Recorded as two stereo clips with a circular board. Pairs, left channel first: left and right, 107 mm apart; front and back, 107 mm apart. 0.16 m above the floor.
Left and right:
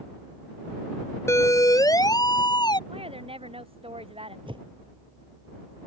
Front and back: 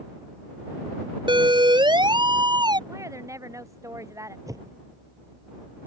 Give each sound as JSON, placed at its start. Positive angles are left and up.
{"t": 1.3, "sound": "a siren", "azimuth_deg": 150}
{"t": 2.9, "sound": "a woman speaking", "azimuth_deg": -120}
{"t": 4.5, "sound": "a whoosh", "azimuth_deg": -125}